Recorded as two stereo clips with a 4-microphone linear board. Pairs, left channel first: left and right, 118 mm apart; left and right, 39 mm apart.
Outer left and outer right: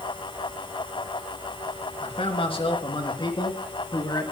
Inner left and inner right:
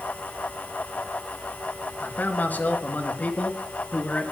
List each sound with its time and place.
2.0 s a man speaking: 55° left (ahead or behind), 3.5 m; by 4.3 s 35° left (ahead or behind), 4.5 m